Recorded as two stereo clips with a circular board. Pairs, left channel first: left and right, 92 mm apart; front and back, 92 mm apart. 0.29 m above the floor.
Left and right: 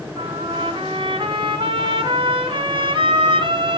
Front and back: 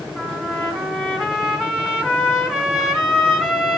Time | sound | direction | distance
0.2 | a trumpet | 95° right | 2 m